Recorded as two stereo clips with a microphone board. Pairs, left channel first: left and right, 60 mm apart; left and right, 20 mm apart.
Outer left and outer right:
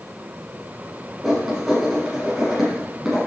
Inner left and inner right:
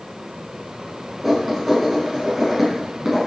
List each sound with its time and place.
1.2 s writing: 5° right (ahead or behind), 4 m